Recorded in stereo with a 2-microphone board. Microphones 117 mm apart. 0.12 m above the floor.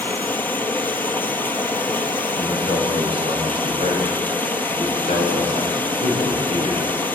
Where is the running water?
15° left (ahead or behind), 1.4 m.